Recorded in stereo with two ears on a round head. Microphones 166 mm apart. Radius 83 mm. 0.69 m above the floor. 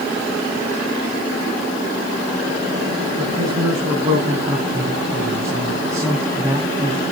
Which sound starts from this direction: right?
A man speaking, at 3.2 s.